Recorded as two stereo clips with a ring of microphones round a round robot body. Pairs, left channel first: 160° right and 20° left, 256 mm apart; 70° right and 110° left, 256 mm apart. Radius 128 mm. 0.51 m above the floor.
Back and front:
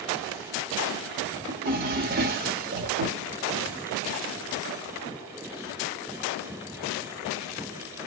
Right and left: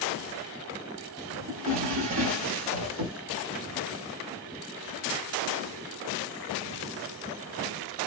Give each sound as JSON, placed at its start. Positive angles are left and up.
{"t": 1.5, "sound": "a drawer", "azimuth_deg": 75, "distance_m": 0.8}